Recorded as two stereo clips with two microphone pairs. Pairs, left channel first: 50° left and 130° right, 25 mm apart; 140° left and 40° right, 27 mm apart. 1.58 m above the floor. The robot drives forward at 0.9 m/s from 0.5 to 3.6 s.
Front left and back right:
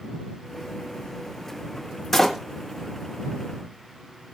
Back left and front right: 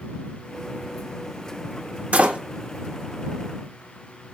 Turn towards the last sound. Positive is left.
turn(degrees=-95)